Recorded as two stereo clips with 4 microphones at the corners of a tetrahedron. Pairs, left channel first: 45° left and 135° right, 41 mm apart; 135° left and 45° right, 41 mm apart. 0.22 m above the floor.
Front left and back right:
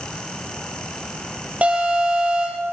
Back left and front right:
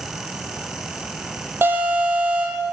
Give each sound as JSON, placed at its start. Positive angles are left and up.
{"t": 1.6, "sound": "an alarm", "azimuth_deg": -75, "distance_m": 10.0}